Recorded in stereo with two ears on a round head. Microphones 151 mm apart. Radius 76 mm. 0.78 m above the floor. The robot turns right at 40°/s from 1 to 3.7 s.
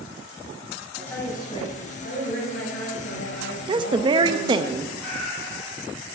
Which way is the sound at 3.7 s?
25° right (ahead or behind).